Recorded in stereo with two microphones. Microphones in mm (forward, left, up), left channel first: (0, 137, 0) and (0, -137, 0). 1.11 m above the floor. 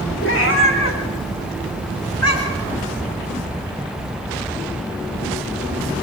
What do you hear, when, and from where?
0.2 s a cat meowing: 45° left (ahead or behind), 3.5 m; by 2.7 s 65° left (ahead or behind), 5 m